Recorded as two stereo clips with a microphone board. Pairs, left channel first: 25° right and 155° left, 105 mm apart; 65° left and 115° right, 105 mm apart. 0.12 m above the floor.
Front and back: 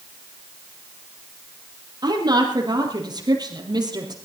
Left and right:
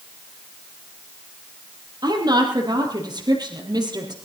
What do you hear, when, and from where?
2.0 s a woman speaking: 155° right, 3 m